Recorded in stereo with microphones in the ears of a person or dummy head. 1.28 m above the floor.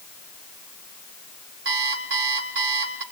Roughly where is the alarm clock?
Right.